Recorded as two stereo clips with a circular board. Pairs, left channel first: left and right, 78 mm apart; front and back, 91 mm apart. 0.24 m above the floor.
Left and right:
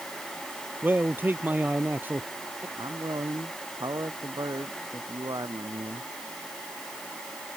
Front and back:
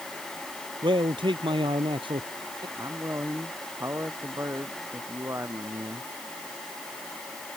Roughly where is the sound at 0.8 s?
Behind right.